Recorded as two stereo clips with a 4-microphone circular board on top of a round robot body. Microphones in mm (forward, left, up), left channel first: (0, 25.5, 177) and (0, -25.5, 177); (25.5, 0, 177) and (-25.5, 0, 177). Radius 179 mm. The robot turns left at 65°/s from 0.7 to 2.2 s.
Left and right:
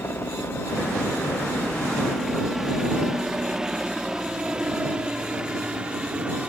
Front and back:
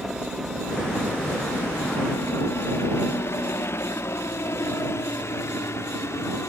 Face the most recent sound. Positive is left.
turn(degrees=-20)